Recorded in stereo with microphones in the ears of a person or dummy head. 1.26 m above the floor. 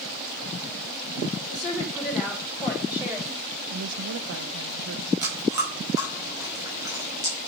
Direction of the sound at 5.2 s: 15° right (ahead or behind).